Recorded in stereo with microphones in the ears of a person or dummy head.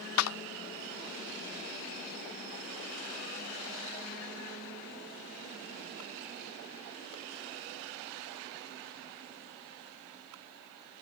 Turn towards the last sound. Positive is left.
turn(degrees=85)